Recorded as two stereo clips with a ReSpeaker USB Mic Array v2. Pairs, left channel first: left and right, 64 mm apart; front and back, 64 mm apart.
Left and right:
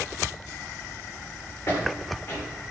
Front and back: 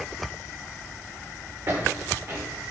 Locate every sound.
1.7 s footsteps: 145° left, 5.5 m